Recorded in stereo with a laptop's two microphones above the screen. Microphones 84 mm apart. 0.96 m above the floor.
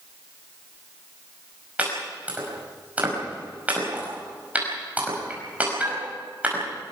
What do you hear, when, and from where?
1.8 s chopping: 15° right (ahead or behind), 5 m